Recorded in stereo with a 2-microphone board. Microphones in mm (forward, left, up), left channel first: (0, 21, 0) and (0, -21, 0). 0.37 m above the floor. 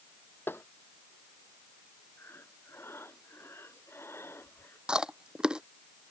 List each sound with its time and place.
0.5 s tapping: 65° left (ahead or behind)
2.2 s breathing: 80° left
4.9 s chewing: 20° right (ahead or behind)